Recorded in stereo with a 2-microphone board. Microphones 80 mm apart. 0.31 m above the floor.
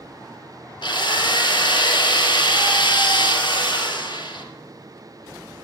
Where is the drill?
70° left (ahead or behind), 2.5 m.